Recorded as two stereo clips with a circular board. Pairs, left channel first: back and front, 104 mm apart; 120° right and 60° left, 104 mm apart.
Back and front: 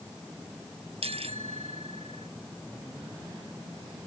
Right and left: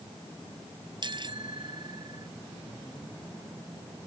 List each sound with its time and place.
1.0 s a bicycle bell: 20° left; by 2.3 s 10° left